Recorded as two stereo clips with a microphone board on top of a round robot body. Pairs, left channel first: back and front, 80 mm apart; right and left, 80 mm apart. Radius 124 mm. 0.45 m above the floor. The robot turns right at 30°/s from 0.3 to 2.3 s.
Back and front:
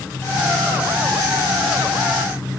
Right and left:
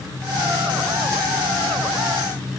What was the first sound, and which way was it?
Only background noise.